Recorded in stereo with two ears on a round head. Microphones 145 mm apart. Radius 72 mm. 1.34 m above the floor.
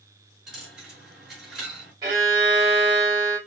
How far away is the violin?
About 3 m.